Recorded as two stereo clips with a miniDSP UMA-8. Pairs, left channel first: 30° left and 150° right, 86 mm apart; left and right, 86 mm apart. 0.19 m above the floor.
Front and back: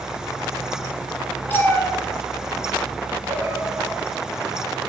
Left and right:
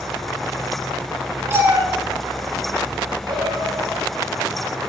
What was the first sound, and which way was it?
A cat meowing, 35° right.